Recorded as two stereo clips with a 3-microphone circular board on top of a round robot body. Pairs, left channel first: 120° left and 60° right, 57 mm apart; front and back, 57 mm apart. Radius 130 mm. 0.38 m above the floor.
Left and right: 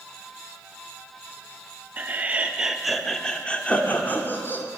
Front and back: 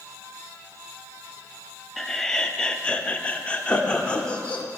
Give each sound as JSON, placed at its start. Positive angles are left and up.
{"t": 2.0, "sound": "laughter", "azimuth_deg": -80, "distance_m": 1.0}